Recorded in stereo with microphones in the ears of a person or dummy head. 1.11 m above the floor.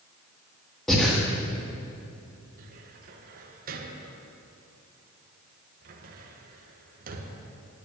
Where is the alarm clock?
I don't hear an alarm clock.